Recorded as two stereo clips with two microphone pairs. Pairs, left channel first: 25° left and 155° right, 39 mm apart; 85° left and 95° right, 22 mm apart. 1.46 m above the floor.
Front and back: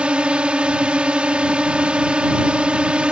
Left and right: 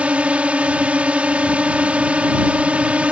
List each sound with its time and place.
0.0 s a drone: 95° right